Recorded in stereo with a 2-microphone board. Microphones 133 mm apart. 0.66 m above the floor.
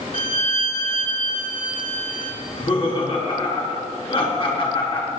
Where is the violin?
70° left (ahead or behind), 2 m.